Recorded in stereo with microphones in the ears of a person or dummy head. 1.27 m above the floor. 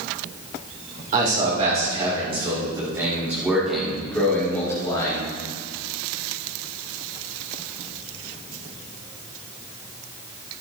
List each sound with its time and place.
1.1 s a man speaking: 45° right (ahead or behind), 4 m; by 5.2 s 25° left (ahead or behind), 3.5 m